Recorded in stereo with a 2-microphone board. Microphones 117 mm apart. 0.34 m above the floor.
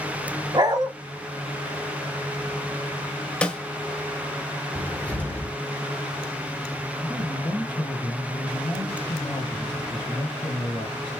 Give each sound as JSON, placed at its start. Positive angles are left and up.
{"t": 0.5, "sound": "a dog barking", "side_deg": -35, "distance_m": 0.8}
{"t": 3.4, "sound": "a snare drum", "side_deg": 10, "distance_m": 0.6}
{"t": 4.8, "sound": "a cupboard door", "side_deg": 10, "distance_m": 0.8}
{"t": 7.0, "sound": "a man speaking", "side_deg": 40, "distance_m": 2.5}